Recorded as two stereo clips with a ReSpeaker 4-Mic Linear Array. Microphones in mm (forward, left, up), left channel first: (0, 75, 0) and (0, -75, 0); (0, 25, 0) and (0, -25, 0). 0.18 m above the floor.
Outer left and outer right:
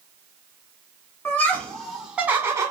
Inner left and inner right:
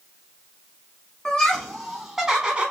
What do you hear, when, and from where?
1.2 s laughter: 15° left (ahead or behind), 1.3 m; by 2.7 s 25° right (ahead or behind), 1.2 m